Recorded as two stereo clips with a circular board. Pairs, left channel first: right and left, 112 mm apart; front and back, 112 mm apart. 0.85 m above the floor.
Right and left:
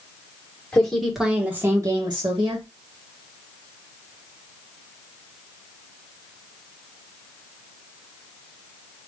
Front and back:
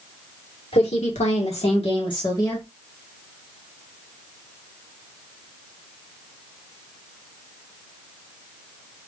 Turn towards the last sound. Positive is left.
turn(degrees=60)